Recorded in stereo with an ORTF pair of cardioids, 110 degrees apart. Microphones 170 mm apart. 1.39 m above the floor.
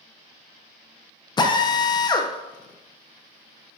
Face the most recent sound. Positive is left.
turn(degrees=25)